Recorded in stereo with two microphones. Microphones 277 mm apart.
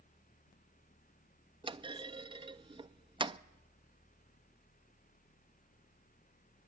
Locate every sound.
1.6 s a clunk: 15° right (ahead or behind), 0.5 m